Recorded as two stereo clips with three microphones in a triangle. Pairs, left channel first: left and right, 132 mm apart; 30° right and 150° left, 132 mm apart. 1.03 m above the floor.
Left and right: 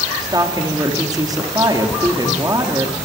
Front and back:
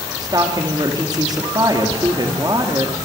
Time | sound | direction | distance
0.2 | a woman speaking | 150° right | 2.5 m